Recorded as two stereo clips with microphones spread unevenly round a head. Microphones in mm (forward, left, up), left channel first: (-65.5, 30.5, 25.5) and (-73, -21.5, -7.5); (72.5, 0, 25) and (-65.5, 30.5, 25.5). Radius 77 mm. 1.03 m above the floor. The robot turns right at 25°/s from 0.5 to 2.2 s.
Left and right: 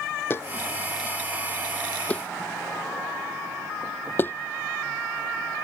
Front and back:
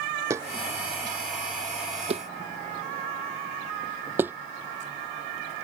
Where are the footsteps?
95° left; by 4.3 s 90° left.